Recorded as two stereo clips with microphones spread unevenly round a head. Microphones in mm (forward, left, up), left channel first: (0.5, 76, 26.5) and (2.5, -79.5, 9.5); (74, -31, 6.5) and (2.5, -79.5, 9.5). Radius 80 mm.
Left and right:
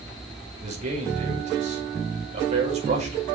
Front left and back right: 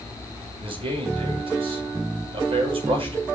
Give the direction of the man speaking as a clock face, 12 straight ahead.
5 o'clock.